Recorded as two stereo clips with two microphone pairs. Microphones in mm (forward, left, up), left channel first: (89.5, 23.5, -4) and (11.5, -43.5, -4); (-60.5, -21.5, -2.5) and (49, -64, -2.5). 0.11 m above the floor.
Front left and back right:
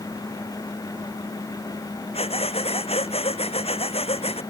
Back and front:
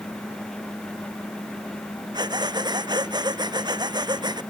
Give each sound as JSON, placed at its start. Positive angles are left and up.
{"t": 2.1, "sound": "breathing", "azimuth_deg": 30}